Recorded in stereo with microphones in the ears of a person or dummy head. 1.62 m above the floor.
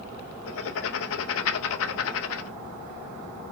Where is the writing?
75° left (ahead or behind), 0.7 m.